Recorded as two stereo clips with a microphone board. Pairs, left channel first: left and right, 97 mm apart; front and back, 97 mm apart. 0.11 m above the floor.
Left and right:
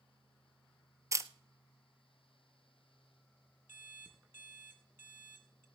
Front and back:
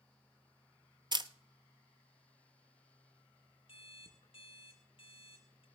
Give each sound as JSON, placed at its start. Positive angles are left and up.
{"t": 1.1, "sound": "a camera shutter", "azimuth_deg": -145, "distance_m": 0.7}
{"t": 3.7, "sound": "an alarm clock", "azimuth_deg": -20, "distance_m": 2.0}